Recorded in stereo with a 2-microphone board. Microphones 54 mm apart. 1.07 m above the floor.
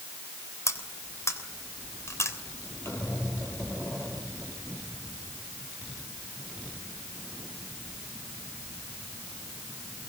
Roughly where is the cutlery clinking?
Left.